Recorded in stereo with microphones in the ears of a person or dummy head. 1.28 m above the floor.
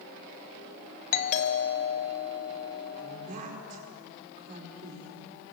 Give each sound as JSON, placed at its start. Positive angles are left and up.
{"t": 1.1, "sound": "a doorbell", "side_deg": 45, "distance_m": 1.8}
{"t": 3.0, "sound": "a woman speaking", "side_deg": -45, "distance_m": 5.0}